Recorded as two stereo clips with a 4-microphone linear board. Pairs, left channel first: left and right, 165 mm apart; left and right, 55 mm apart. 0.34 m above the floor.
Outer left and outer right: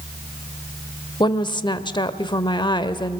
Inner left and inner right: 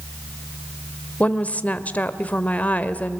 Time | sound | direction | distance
1.2 | a woman speaking | 30° left (ahead or behind) | 0.9 m